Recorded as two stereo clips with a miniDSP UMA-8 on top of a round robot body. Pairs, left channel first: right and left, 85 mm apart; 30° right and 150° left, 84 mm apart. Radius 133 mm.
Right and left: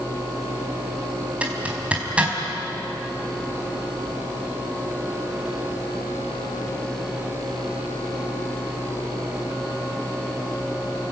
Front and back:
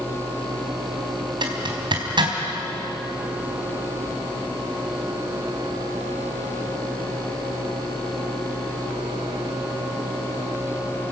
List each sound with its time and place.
1.4 s a zipper: 165° left, 4 m